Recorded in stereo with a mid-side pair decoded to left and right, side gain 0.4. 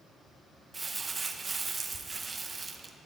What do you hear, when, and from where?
0.7 s crumpling: 30° right, 1.1 m